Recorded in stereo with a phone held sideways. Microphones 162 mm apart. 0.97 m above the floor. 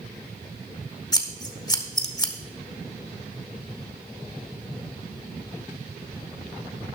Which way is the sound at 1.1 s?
25° left (ahead or behind).